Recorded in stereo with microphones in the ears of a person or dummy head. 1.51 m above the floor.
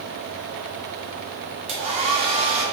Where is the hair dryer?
30° right (ahead or behind), 1.1 m.